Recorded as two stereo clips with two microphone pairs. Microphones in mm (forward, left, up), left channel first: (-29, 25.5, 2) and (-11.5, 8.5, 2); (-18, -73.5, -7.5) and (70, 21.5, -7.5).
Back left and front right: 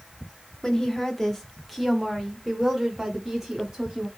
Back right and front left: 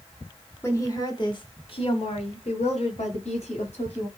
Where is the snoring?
No snoring in this recording.